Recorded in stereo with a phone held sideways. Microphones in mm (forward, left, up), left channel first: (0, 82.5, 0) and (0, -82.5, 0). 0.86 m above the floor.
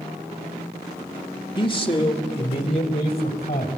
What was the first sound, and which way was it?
A man speaking, 30° left (ahead or behind).